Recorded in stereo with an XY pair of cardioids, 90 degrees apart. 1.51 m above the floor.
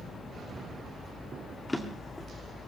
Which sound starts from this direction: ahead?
A drawer, at 1.7 s.